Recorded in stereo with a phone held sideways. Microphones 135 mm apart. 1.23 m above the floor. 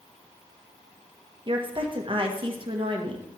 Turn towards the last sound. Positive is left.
turn(degrees=-40)  # may be behind; listen again after turning